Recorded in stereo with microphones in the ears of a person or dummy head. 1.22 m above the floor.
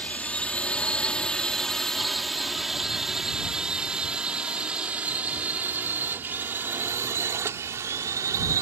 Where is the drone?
10° left (ahead or behind); by 8.6 s 20° right (ahead or behind).